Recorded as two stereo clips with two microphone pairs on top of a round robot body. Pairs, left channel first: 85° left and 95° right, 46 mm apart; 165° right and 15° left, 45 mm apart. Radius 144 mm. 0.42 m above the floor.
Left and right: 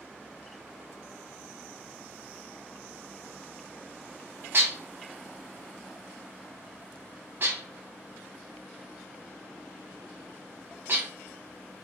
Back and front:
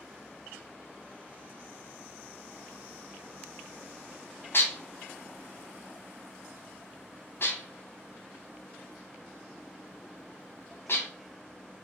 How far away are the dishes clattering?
About 1.0 m.